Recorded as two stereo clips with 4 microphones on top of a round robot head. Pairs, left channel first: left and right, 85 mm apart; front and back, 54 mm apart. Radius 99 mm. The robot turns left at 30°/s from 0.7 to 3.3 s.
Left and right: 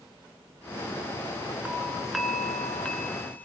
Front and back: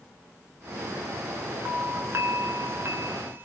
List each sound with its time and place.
1.6 s a doorbell: 160° right, 2 m; by 3.5 s 150° left, 2 m